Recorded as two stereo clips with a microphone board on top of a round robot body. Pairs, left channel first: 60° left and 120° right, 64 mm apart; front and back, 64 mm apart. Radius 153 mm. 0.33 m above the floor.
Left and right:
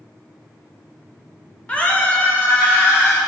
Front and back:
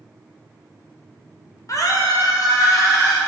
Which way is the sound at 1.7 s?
10° right.